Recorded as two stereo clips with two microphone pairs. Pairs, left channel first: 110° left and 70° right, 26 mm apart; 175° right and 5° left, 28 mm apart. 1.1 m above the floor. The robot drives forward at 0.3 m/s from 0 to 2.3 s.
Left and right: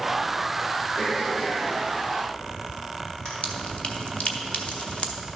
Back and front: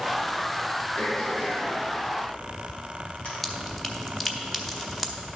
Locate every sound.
1.0 s throat clearing: 155° left, 3 m; by 3.3 s 160° left, 3 m
3.4 s dripping: 115° left, 0.8 m